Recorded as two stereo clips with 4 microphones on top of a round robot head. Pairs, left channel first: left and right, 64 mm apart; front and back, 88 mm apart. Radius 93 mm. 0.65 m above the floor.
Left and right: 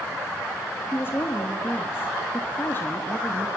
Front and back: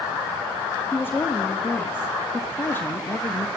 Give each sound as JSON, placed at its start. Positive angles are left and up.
{"t": 0.9, "sound": "a woman speaking", "azimuth_deg": 55, "distance_m": 1.1}